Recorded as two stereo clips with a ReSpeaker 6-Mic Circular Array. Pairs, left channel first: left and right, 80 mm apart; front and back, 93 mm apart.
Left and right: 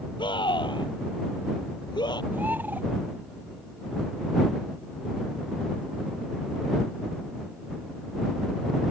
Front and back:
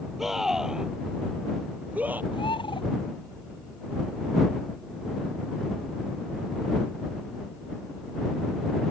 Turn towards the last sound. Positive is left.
turn(degrees=-25)